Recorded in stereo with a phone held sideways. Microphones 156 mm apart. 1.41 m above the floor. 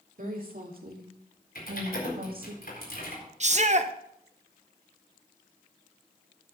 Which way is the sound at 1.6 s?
80° left.